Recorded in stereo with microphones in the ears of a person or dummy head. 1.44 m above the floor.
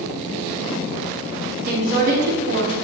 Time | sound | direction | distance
1.7 | a woman speaking | 60° right (ahead or behind) | 2.5 m